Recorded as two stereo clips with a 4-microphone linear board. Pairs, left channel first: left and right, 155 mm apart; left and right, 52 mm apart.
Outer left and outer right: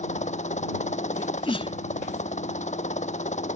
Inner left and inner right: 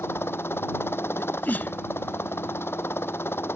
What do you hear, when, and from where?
0.0 s a helicopter: 50° left (ahead or behind)
1.2 s a sneeze: 35° left (ahead or behind)